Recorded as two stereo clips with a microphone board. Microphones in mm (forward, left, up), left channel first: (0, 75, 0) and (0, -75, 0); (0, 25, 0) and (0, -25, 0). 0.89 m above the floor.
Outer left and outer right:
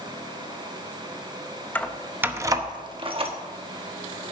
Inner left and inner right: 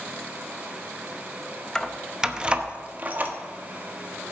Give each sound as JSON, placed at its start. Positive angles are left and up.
{"t": 1.8, "sound": "keys jangling", "side_deg": 10, "distance_m": 0.6}